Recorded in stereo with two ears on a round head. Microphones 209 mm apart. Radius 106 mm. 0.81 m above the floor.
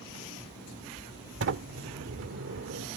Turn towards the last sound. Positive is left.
turn(degrees=-60)  # may be behind; listen again after turning